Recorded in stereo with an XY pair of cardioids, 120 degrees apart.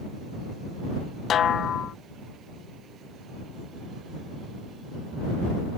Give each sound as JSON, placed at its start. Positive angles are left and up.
{"t": 1.3, "sound": "a snare drum", "azimuth_deg": 50}